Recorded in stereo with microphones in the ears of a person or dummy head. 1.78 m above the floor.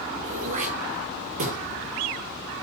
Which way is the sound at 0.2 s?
35° right (ahead or behind).